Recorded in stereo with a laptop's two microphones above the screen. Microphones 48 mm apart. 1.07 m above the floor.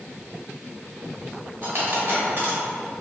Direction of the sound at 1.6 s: 50° right (ahead or behind).